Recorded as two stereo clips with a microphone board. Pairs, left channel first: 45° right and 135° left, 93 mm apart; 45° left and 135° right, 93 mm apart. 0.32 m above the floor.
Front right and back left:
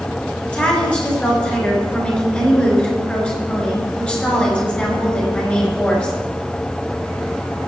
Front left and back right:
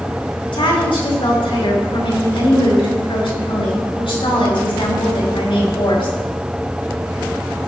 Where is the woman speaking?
30° left, 5 m.